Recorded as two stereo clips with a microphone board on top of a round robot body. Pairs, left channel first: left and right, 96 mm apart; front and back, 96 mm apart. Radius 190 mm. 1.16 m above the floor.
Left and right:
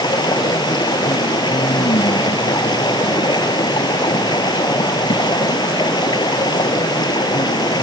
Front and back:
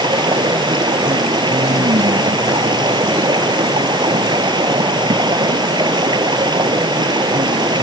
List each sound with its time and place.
0.0 s running water: 135° left